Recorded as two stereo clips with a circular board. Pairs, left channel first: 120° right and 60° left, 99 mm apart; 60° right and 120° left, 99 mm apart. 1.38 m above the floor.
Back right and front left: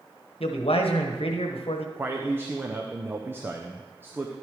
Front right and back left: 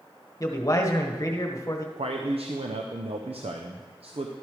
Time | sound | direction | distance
0.4 | a man speaking | 115° right | 1.2 m
2.0 | a man speaking | 130° left | 0.6 m